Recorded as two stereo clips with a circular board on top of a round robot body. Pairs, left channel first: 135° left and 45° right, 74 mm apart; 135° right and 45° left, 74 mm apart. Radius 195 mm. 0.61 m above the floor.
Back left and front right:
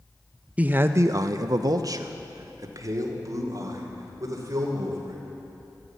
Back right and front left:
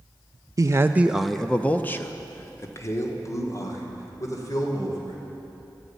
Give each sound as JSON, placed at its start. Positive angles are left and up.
{"t": 0.6, "sound": "a man speaking", "azimuth_deg": 20, "distance_m": 0.7}